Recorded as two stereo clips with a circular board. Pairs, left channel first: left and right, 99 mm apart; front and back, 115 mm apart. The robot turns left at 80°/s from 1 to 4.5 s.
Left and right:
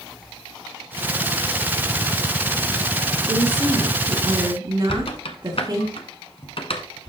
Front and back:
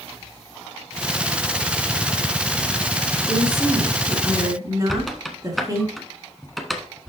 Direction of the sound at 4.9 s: 90° left.